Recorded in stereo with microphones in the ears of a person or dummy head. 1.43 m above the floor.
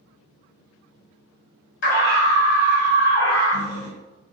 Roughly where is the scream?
Left.